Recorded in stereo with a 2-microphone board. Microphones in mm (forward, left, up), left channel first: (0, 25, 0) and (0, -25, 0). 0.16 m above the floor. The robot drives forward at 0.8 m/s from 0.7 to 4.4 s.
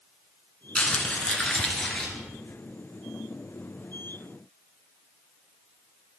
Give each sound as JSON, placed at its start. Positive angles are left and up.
{"t": 0.8, "sound": "crumpling", "side_deg": 25, "distance_m": 1.3}